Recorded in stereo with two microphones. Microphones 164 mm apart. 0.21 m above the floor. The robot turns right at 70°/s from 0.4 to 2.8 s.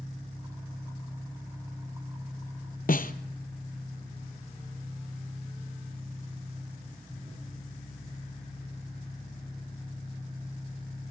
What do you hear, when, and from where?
0.0 s an engine running: 35° left, 9 m; by 11.1 s 155° right, 9 m
2.9 s a snare drum: 60° left (ahead or behind), 1.0 m